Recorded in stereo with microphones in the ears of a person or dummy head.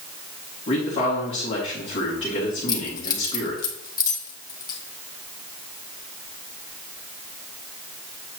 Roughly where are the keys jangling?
Left.